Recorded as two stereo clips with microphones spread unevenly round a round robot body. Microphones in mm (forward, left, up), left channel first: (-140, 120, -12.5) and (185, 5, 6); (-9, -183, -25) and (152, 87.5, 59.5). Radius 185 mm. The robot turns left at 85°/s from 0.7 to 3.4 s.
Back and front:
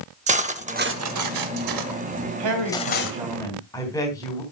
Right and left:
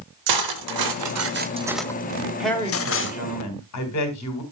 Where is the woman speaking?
35° right, 3 m; by 4.4 s 120° right, 3 m.